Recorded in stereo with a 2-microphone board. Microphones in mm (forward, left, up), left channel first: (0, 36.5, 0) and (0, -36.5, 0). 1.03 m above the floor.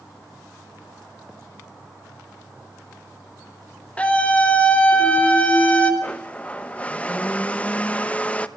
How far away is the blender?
About 0.7 m.